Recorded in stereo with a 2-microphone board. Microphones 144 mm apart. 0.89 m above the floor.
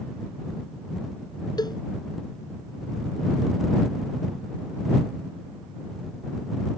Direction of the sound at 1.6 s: 30° left (ahead or behind).